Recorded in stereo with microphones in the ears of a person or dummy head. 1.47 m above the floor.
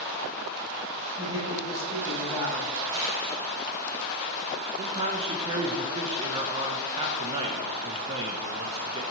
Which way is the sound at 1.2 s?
25° right (ahead or behind).